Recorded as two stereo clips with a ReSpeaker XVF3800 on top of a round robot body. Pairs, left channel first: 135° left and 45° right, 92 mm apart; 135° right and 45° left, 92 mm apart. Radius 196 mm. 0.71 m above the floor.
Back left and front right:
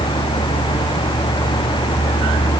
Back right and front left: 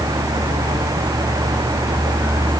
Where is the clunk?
I don't hear a clunk.